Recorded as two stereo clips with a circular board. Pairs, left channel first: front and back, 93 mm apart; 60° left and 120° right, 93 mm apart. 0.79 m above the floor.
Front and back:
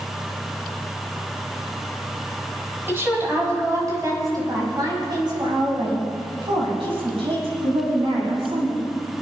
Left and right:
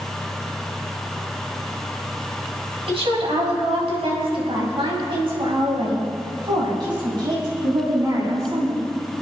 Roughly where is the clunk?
I don't hear a clunk.